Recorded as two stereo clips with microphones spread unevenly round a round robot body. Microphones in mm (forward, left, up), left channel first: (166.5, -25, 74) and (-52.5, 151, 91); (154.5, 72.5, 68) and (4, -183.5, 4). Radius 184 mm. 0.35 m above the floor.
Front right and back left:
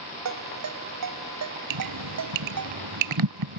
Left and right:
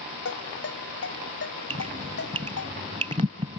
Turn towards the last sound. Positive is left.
turn(degrees=165)